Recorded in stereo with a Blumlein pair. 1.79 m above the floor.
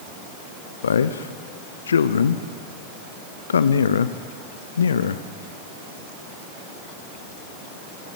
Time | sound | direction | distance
0.8 | a man speaking | 70° left | 0.6 m